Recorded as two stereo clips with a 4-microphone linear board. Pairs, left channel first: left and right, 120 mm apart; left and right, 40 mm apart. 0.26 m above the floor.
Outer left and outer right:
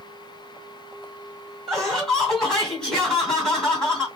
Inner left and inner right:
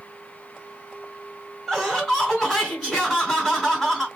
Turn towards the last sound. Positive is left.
turn(degrees=5)  # may be behind; listen again after turning